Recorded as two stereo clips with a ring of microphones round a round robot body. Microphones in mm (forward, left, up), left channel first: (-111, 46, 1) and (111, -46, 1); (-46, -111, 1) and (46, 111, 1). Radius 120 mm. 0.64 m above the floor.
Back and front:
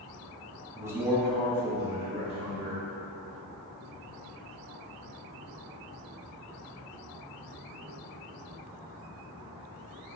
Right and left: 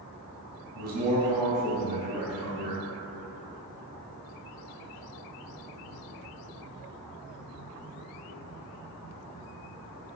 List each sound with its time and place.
0.8 s a man speaking: 50° left, 1.0 m; by 2.8 s 135° right, 1.6 m